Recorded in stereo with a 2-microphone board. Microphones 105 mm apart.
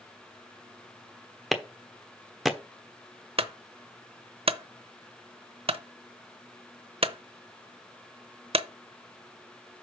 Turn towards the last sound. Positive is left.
turn(degrees=-65)  # may be behind; listen again after turning